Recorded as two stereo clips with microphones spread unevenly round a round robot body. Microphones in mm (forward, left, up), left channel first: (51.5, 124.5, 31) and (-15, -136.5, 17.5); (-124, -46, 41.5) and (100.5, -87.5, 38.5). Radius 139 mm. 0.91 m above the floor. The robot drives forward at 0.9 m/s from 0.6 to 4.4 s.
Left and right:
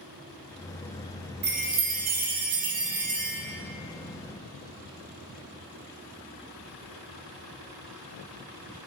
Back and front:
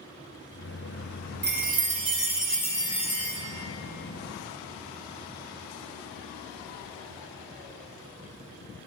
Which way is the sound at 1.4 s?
50° right.